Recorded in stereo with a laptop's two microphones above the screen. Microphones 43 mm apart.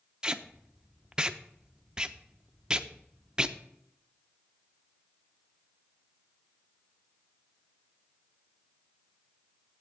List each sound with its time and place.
0.2 s tape being pulled: 20° right (ahead or behind), 0.6 m